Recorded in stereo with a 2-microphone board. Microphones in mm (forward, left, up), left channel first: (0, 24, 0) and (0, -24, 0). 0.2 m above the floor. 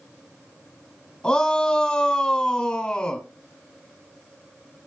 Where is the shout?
15° left (ahead or behind), 1.4 m.